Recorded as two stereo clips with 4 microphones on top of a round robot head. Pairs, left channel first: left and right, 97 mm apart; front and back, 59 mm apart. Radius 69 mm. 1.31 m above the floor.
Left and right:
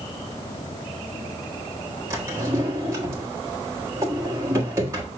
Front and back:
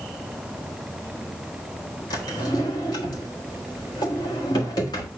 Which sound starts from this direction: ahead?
A drawer, at 2.1 s.